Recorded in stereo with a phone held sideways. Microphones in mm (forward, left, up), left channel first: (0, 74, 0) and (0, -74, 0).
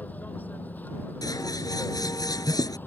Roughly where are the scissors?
Left.